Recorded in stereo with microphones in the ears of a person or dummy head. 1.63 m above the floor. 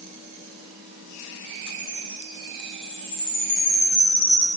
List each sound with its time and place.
1.7 s a chime: 65° left (ahead or behind), 6.5 m